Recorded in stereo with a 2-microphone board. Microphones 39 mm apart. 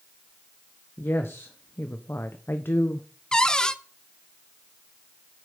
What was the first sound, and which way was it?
A woman speaking, 70° left (ahead or behind).